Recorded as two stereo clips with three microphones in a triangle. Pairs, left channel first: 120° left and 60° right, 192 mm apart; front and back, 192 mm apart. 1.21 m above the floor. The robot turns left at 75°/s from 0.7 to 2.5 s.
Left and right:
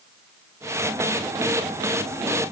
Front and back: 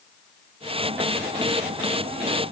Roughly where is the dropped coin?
No dropped coin in this recording.